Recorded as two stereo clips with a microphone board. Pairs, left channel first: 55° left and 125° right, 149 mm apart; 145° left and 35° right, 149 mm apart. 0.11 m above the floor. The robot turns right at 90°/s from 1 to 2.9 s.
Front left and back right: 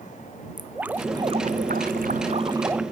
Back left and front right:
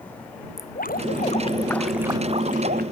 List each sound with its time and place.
0.6 s dripping: 155° left; by 2.8 s 40° right